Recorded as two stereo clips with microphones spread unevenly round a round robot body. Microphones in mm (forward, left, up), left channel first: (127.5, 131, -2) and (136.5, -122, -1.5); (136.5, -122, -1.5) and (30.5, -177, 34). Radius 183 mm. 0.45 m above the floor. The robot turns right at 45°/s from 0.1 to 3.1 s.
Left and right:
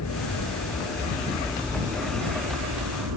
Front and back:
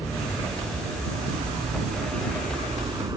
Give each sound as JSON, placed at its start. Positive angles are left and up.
{"t": 0.0, "sound": "an aircraft", "azimuth_deg": 115}